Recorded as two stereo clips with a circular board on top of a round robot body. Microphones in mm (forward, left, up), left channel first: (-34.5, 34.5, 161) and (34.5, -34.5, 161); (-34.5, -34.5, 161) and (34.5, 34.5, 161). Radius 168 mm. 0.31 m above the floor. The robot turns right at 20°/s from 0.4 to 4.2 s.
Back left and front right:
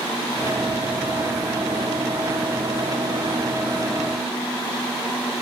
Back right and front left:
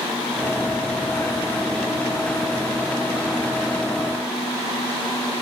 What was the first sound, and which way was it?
Only background noise.